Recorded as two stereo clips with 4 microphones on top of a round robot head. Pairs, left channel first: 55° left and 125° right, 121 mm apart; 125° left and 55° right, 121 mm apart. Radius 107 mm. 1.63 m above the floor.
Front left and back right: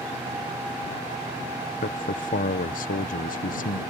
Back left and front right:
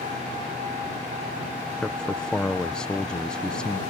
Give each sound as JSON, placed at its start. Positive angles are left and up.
{"t": 1.8, "sound": "a man speaking", "azimuth_deg": 45}